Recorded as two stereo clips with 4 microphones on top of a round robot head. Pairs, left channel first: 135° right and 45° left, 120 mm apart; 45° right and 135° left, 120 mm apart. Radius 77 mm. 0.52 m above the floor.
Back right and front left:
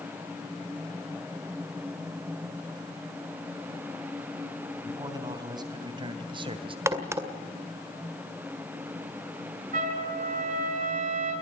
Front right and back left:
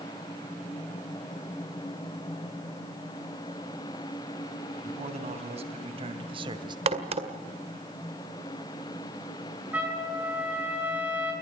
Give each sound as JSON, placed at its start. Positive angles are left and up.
{"t": 4.8, "sound": "a man speaking", "azimuth_deg": 105, "distance_m": 3.5}
{"t": 6.9, "sound": "a crack", "azimuth_deg": 110, "distance_m": 2.0}
{"t": 9.7, "sound": "a trumpet", "azimuth_deg": 60, "distance_m": 7.5}